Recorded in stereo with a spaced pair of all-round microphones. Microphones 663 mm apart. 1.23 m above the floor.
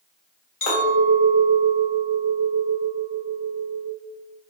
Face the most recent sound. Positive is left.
turn(degrees=50)  # may be behind; listen again after turning